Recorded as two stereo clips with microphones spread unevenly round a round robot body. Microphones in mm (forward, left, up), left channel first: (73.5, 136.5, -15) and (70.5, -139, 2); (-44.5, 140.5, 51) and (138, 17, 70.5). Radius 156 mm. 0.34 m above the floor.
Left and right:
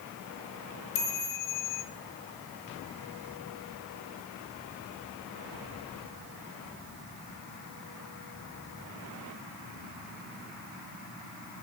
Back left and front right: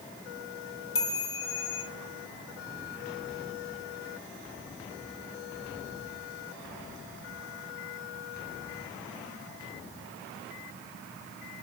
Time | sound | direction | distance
0.9 | a chime | 140° left | 3.5 m